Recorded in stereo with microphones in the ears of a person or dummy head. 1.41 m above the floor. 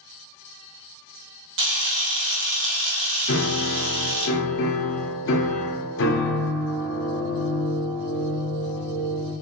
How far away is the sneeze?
I don't hear a sneeze.